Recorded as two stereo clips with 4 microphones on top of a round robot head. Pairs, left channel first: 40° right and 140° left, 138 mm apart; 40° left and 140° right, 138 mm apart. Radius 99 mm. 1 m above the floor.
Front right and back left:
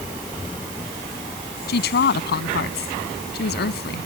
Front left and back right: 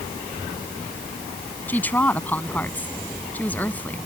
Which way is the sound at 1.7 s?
35° right.